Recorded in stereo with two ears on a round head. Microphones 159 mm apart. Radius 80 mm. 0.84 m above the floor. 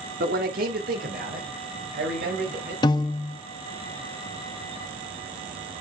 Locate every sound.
0.2 s a man speaking: 55° right (ahead or behind), 1.6 m
2.8 s a piano: 25° left (ahead or behind), 0.7 m